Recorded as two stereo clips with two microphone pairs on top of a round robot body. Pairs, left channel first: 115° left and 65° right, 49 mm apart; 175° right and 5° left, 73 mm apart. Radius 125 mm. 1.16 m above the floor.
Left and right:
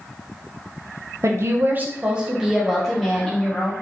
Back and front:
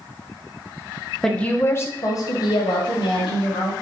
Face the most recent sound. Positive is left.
turn(degrees=-165)